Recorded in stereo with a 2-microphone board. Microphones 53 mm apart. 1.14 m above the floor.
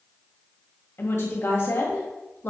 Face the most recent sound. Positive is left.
turn(degrees=50)  # may be behind; listen again after turning